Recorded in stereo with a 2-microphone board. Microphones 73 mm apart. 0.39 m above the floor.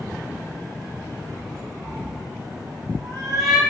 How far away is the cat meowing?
About 4 m.